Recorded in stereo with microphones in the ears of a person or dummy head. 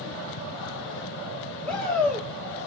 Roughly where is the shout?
Centre.